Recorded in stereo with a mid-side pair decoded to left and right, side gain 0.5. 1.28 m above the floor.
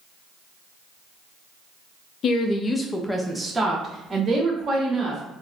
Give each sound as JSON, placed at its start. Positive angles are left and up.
{"t": 2.2, "sound": "a woman speaking", "azimuth_deg": 55, "distance_m": 0.6}